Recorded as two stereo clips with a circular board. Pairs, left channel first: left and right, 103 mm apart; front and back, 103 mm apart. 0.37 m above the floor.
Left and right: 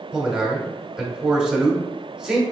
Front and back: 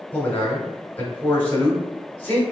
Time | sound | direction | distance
0.1 | a man speaking | 15° right | 1.0 m